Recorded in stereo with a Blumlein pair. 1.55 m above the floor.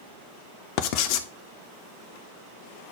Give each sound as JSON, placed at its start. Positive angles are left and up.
{"t": 0.8, "sound": "writing", "azimuth_deg": 45, "distance_m": 0.8}